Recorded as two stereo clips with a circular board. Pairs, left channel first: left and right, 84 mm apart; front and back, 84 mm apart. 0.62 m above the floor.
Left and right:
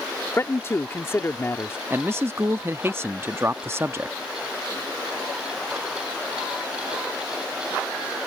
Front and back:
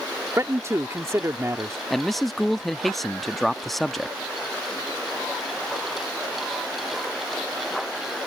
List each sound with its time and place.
0.4 s a man speaking: 140° left
1.9 s a man speaking: 85° right